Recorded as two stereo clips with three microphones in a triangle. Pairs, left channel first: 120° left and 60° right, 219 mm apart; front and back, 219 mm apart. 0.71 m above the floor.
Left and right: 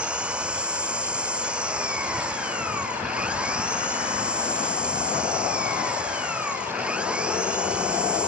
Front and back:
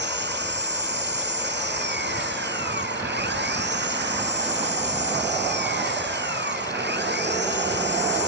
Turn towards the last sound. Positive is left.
turn(degrees=-145)